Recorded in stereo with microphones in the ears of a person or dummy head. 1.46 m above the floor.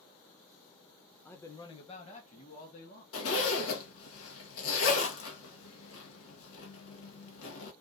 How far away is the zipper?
About 1.3 m.